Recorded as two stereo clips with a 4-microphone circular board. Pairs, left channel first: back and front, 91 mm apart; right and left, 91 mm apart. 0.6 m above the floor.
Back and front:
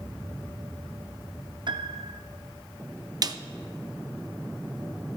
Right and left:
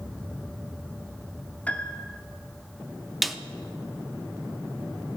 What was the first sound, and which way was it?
A piano, 15° right.